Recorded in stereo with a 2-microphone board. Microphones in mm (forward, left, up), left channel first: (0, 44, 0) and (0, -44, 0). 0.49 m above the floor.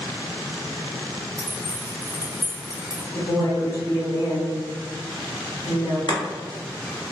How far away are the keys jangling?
About 0.9 m.